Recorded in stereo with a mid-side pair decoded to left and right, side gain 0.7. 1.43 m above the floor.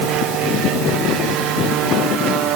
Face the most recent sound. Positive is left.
No sound to turn to.